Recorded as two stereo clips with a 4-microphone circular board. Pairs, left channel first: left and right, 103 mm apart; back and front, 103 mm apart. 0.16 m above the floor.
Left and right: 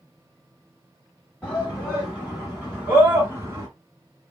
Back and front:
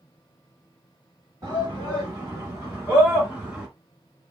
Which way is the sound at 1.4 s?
15° left.